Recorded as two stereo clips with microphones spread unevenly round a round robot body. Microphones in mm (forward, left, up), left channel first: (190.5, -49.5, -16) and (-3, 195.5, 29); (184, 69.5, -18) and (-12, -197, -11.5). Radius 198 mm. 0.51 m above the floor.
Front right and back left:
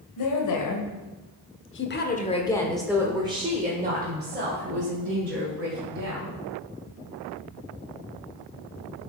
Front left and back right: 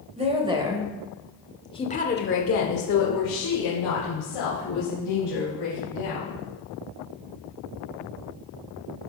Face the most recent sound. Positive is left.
turn(degrees=80)